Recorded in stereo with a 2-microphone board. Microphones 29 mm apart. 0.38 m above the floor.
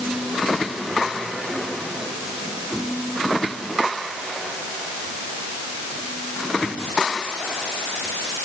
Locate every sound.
Only background noise.